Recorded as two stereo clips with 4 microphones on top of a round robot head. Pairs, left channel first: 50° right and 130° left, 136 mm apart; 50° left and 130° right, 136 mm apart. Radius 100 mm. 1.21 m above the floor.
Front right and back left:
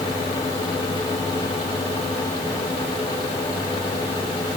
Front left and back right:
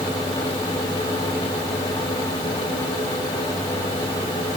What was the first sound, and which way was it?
Only background noise.